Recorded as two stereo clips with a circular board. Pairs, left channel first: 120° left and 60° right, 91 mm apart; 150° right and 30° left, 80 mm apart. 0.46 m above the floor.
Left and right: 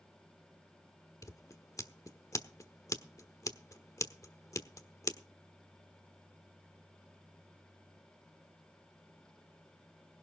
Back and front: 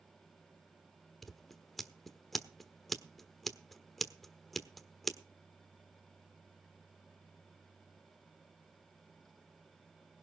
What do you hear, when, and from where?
1.2 s scissors: 120° left, 1.2 m